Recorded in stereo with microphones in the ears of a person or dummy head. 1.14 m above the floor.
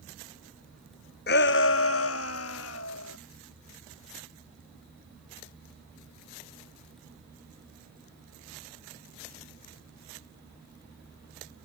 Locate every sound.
1.3 s a shout: 45° left (ahead or behind); by 3.2 s 80° left